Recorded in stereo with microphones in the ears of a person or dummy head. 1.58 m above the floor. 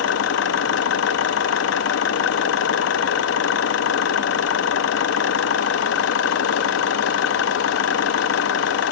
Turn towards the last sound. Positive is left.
turn(degrees=75)  # may be behind; listen again after turning